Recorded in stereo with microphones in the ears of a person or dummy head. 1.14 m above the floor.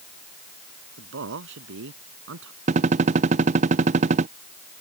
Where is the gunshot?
30° right (ahead or behind).